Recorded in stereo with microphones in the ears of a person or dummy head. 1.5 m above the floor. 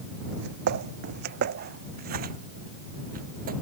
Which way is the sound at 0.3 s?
60° right (ahead or behind).